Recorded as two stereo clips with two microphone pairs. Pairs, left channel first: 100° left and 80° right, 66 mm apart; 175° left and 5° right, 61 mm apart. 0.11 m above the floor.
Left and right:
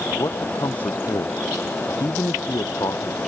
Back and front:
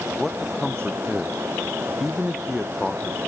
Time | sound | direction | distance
0.2 | a man speaking | 80° left | ?